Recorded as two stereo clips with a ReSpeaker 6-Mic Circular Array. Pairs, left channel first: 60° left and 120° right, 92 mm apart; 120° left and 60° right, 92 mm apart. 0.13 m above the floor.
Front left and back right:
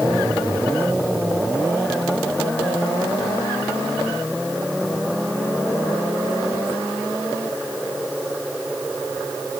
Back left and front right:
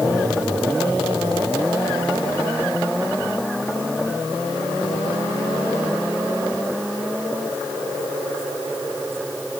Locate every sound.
Only background noise.